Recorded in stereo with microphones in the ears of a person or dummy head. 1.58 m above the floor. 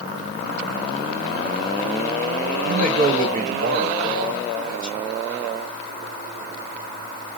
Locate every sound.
2.6 s a man speaking: 45° right (ahead or behind), 1.3 m